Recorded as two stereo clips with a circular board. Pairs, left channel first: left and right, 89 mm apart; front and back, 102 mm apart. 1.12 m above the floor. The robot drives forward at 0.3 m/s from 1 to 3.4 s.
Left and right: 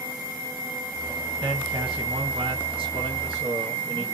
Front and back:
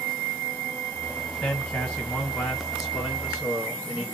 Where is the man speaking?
75° right, 1.4 m; by 4.1 s 100° right, 1.4 m.